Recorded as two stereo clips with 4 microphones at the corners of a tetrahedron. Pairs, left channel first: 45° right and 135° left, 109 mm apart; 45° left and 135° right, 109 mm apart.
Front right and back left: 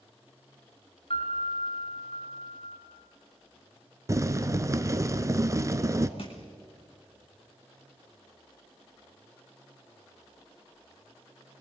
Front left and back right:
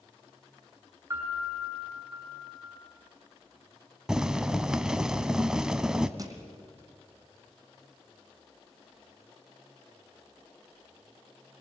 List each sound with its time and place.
1.1 s a piano: 70° right, 5.5 m
4.1 s boiling: 145° left, 0.9 m
6.2 s crushing: 80° right, 2.5 m